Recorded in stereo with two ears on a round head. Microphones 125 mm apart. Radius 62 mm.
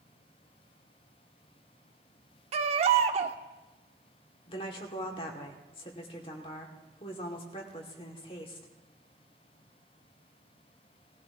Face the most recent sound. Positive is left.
turn(degrees=40)  # may be behind; listen again after turning